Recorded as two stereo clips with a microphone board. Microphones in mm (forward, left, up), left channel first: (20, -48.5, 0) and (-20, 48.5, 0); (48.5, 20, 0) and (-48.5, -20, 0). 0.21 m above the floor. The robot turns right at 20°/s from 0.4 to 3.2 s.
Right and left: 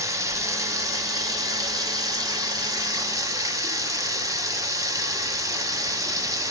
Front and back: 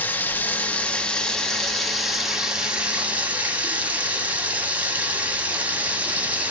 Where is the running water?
80° left, 0.9 m; by 6.5 s 140° left, 0.9 m.